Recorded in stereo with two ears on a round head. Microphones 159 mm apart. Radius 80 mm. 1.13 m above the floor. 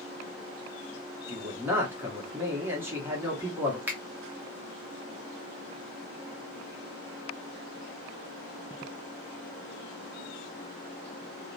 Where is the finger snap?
10° right (ahead or behind), 0.7 m.